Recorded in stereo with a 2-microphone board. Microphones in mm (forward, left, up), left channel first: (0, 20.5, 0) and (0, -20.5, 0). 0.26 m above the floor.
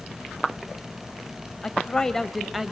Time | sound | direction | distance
1.6 | a woman speaking | 20° left (ahead or behind) | 1.5 m